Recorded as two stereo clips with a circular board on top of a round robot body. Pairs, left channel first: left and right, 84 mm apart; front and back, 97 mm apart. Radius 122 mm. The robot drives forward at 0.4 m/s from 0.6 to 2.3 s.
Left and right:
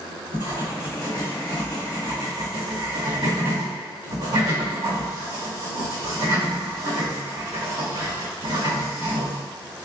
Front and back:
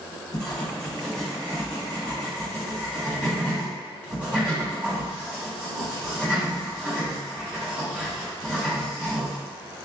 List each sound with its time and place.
0.3 s writing: 80° right, 1.6 m; by 9.8 s 105° right, 1.7 m